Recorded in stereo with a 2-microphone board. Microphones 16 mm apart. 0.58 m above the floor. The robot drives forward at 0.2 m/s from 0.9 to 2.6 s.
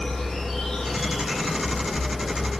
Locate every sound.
0.0 s an insect: 55° left (ahead or behind), 1.3 m; by 2.6 s 45° left (ahead or behind), 1.5 m